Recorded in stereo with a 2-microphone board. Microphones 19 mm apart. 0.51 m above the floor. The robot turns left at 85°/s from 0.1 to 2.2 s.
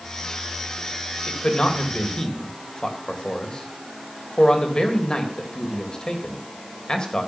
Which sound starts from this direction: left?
A man speaking, at 1.3 s.